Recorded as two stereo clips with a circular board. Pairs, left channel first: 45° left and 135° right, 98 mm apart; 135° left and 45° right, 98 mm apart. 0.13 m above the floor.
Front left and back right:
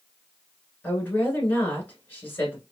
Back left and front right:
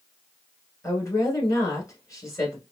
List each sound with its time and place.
0.8 s a woman speaking: 105° left, 1.3 m